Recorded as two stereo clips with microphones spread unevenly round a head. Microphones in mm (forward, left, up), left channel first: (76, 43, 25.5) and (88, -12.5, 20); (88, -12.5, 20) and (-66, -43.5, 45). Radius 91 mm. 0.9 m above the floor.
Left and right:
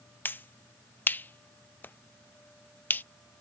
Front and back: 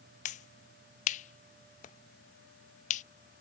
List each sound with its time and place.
0.2 s a finger snap: 45° left